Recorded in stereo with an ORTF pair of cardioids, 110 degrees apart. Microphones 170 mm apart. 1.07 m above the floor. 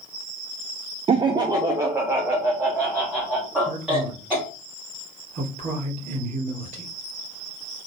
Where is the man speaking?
45° right, 2.5 m.